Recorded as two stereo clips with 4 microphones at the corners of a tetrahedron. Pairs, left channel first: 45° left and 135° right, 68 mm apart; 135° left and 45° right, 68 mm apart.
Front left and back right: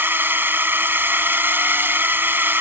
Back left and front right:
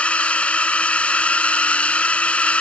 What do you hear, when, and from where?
0.0 s a drone: 170° right